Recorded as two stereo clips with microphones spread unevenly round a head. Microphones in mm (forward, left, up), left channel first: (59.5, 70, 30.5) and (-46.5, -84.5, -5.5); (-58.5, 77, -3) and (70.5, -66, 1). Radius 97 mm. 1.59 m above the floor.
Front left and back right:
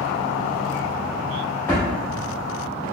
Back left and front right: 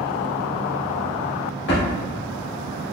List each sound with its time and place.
1.7 s a drawer: 125° left, 1.3 m